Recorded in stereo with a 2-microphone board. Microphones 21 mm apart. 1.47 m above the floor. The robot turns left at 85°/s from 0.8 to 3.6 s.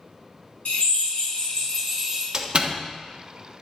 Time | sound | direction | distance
0.7 | a drill | 105° left | 4 m
2.3 | a door slam | 35° right (ahead or behind) | 1.2 m